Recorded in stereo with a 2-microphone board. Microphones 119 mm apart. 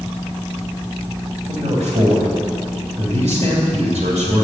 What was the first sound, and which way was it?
A man speaking, 70° right (ahead or behind).